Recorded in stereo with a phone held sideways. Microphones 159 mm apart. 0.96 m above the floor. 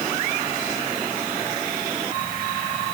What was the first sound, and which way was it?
Only background noise.